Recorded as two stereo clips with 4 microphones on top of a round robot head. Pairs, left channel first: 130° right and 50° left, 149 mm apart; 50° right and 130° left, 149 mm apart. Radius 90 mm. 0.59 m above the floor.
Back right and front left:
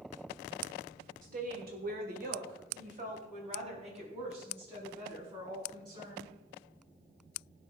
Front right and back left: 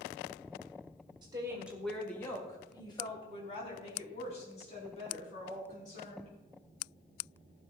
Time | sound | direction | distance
1.2 | a woman speaking | 75° left | 1.7 m